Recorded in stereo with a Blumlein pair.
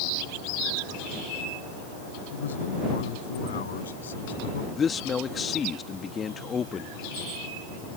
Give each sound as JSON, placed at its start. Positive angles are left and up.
{"t": 2.3, "sound": "a man speaking", "azimuth_deg": 65}
{"t": 4.8, "sound": "a man speaking", "azimuth_deg": 20}